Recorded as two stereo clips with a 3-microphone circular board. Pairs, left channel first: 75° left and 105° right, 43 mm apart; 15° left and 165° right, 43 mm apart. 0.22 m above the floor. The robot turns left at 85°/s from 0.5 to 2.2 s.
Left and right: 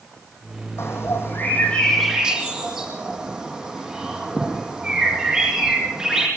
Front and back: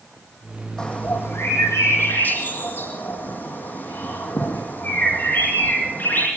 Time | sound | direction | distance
0.8 | a bird | 95° left | 8.5 m